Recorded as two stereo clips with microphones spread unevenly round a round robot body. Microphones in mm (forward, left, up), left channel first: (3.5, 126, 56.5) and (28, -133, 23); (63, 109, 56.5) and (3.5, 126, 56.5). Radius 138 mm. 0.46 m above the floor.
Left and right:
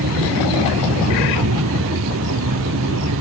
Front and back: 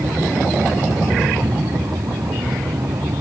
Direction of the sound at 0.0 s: 130° right.